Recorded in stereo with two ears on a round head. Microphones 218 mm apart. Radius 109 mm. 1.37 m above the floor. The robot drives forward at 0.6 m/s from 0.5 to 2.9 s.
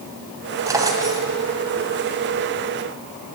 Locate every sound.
0.7 s a drawer: 15° right (ahead or behind), 2.5 m